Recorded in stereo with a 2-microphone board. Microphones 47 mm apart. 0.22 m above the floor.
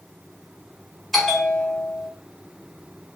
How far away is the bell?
About 1.4 m.